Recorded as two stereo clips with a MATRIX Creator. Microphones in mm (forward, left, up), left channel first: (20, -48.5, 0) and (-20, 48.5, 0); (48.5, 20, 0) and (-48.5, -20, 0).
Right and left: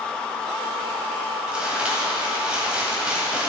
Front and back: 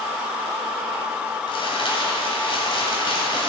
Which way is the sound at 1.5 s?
35° left.